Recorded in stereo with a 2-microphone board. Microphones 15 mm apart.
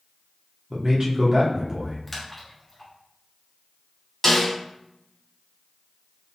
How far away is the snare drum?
About 2.5 m.